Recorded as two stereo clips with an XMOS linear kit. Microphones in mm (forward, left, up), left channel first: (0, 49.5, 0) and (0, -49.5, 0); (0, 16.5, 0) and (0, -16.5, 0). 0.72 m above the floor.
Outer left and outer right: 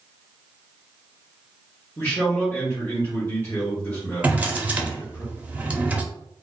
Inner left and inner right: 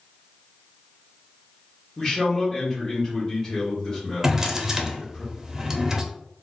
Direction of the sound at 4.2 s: 15° right (ahead or behind).